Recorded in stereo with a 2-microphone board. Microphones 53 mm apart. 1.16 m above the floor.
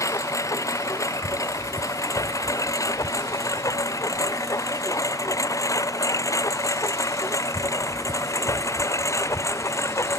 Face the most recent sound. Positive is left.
turn(degrees=60)  # may be behind; listen again after turning